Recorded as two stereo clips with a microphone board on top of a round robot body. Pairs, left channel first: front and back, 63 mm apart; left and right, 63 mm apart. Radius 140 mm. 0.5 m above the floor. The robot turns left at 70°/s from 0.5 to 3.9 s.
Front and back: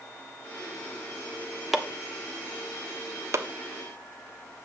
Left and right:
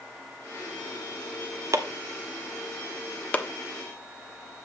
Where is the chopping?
95° right, 1.4 m; by 4.7 s 115° left, 1.4 m.